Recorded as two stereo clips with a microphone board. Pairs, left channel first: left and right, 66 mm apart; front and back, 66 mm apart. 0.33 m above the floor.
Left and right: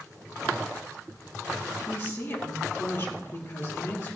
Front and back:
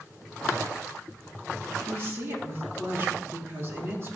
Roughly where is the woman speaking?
Behind left.